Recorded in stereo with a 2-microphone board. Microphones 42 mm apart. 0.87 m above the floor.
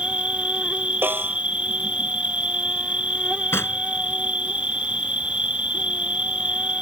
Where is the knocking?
90° left.